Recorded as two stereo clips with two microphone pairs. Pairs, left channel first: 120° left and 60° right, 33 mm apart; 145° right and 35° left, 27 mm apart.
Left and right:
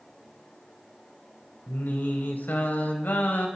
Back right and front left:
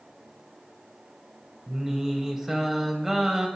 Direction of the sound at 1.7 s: 110° left.